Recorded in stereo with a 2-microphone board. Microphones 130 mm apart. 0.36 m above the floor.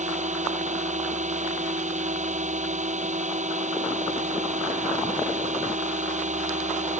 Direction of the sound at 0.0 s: 65° right (ahead or behind).